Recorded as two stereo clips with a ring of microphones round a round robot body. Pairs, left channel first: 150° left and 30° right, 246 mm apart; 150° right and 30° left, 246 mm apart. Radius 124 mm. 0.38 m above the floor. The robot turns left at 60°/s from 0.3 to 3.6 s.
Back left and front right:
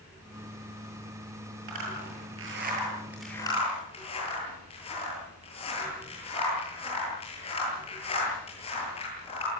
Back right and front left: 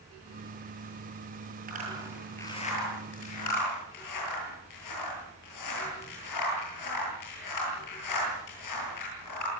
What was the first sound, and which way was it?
A zipper, 25° right.